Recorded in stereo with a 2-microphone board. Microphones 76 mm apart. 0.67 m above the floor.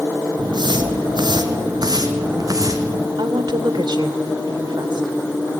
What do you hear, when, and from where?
0.4 s footsteps: 70° right (ahead or behind), 2 m; by 3.1 s 40° right (ahead or behind), 3 m
3.2 s a woman speaking: 75° right (ahead or behind), 2.0 m